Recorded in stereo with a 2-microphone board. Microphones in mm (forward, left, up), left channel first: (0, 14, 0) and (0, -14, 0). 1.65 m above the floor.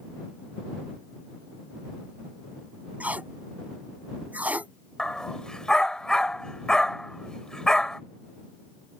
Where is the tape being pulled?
70° right (ahead or behind).